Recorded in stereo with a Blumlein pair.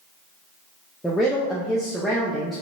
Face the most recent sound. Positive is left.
turn(degrees=5)